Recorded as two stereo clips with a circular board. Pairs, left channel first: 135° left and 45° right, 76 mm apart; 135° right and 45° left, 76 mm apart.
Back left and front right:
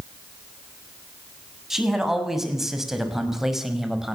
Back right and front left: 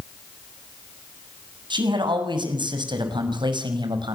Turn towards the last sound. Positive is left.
turn(degrees=40)